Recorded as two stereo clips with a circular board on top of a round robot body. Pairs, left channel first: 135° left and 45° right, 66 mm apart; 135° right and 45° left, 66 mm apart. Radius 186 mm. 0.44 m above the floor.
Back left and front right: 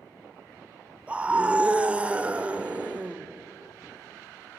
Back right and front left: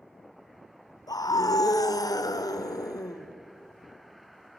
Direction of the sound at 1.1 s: 115° right.